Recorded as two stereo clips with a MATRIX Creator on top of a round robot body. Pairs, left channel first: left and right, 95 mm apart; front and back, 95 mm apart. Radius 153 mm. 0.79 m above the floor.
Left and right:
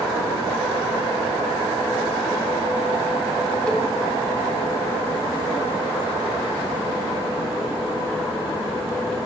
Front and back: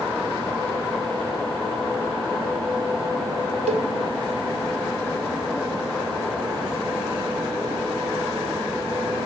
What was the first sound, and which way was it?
A cowbell, 170° left.